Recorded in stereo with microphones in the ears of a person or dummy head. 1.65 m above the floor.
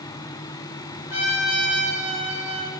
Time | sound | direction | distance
1.1 | a trumpet | 45° left (ahead or behind) | 3 m